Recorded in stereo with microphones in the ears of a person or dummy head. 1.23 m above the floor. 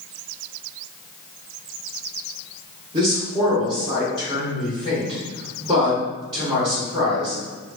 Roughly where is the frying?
I don't hear frying.